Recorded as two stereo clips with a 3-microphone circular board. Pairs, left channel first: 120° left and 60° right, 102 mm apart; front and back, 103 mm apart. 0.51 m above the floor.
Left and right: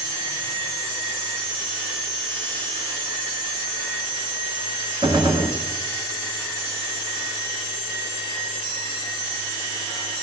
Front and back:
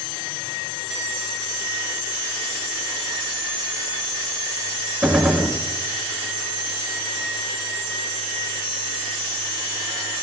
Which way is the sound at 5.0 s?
95° right.